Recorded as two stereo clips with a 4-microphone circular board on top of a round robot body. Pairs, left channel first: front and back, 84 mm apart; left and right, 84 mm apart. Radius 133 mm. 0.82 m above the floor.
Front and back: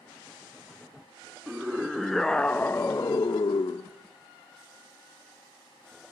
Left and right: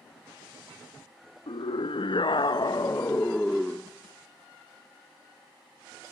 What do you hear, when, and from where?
1.5 s a scream: 100° left, 2 m; by 3.9 s 10° right, 1.4 m